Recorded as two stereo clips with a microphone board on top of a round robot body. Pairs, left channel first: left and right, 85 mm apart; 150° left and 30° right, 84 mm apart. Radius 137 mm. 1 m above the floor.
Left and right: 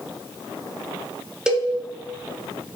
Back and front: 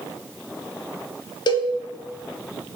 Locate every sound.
1.5 s a cowbell: 175° right, 0.6 m